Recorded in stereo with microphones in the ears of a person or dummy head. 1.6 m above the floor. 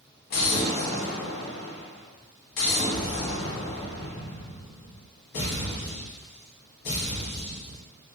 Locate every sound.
0.3 s an explosion: 45° left (ahead or behind), 1.0 m